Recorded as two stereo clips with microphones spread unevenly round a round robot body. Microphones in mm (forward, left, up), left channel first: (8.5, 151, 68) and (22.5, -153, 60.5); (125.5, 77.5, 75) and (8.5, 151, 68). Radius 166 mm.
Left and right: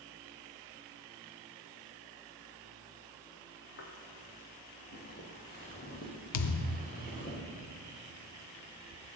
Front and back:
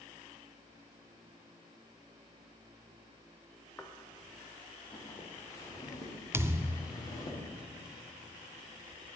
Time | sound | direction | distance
3.8 | footsteps | 45° left | 1.6 m
6.3 | a thud | 80° left | 0.5 m